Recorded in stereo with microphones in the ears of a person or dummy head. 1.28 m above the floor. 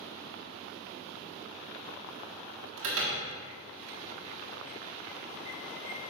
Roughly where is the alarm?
Right.